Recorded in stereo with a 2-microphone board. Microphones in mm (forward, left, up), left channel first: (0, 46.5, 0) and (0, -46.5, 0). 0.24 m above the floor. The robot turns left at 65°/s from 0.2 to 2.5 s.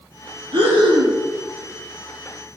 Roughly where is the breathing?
Ahead right.